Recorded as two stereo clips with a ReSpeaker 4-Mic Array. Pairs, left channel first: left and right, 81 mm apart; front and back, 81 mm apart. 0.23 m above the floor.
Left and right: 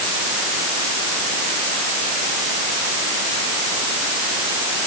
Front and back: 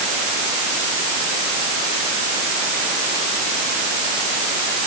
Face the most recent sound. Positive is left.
No sound to turn to.